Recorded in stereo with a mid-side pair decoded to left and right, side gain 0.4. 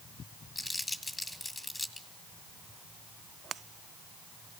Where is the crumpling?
15° left, 2.5 m.